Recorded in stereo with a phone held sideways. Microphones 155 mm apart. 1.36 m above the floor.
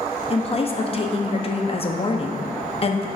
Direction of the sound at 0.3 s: 40° left (ahead or behind).